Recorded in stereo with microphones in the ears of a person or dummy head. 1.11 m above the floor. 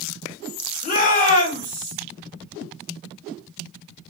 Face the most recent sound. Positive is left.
turn(degrees=40)  # may be behind; listen again after turning